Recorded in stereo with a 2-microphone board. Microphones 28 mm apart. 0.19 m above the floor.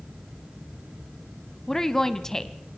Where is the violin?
No violin in this recording.